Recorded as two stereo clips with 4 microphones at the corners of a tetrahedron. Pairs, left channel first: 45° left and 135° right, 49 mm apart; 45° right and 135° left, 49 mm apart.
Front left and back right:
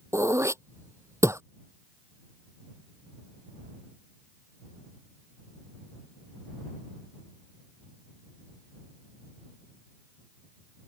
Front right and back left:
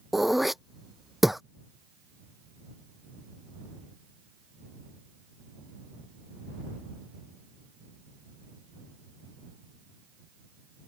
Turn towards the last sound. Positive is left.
turn(degrees=-140)